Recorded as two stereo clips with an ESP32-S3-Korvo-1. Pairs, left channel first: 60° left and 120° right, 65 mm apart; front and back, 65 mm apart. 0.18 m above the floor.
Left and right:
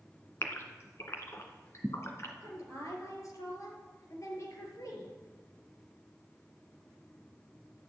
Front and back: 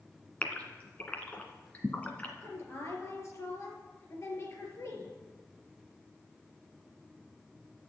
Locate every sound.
0.4 s a gasp: 60° left, 1.9 m
2.4 s a woman speaking: 40° left, 4 m